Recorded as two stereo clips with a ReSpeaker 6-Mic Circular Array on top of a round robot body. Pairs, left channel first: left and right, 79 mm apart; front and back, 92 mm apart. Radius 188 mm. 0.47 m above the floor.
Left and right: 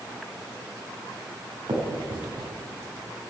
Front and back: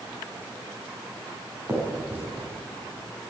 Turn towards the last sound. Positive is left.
turn(degrees=-115)